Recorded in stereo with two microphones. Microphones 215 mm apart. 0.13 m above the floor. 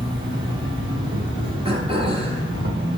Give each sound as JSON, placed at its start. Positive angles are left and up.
{"t": 0.0, "sound": "an insect", "side_deg": -60, "distance_m": 2.0}
{"t": 1.6, "sound": "throat clearing", "side_deg": -25, "distance_m": 1.3}